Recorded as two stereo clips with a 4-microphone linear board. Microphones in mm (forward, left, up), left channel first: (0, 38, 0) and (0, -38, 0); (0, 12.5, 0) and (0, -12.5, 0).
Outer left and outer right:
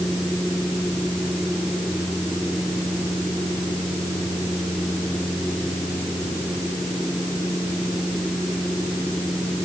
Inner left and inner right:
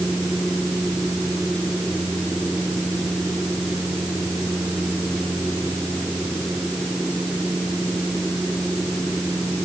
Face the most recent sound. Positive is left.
No sound to turn to.